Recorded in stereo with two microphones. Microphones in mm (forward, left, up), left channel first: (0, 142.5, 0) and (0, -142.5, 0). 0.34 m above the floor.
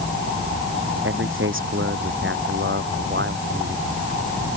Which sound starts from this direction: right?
A man speaking, at 1.0 s.